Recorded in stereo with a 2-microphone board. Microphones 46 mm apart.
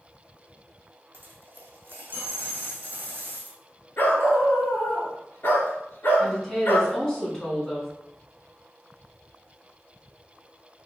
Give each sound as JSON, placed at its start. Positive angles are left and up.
{"t": 1.1, "sound": "a dropped coin", "side_deg": -40, "distance_m": 1.0}
{"t": 4.0, "sound": "a dog barking", "side_deg": 50, "distance_m": 1.3}
{"t": 6.2, "sound": "a woman speaking", "side_deg": 15, "distance_m": 1.9}